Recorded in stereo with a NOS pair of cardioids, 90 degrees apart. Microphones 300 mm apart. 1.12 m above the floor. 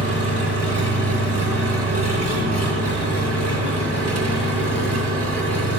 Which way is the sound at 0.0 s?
55° right.